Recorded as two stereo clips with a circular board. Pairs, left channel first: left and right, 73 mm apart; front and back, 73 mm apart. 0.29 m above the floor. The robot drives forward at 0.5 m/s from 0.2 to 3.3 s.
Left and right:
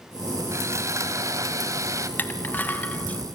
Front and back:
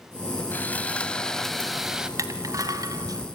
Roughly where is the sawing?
Ahead right.